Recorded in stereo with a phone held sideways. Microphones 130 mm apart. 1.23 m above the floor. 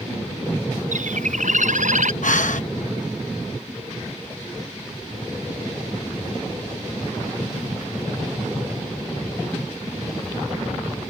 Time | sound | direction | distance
0.9 | a bird | 75° right (ahead or behind) | ?
2.2 | breathing | 75° left (ahead or behind) | ?